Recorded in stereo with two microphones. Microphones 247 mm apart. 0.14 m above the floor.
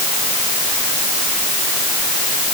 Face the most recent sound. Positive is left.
No sound to turn to.